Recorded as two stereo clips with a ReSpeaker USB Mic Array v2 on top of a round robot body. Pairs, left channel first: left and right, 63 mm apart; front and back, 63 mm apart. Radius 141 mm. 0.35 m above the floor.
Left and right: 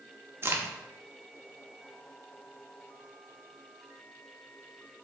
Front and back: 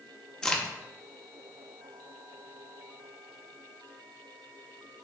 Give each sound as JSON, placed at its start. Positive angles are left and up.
{"t": 0.4, "sound": "a crack", "azimuth_deg": -70, "distance_m": 1.0}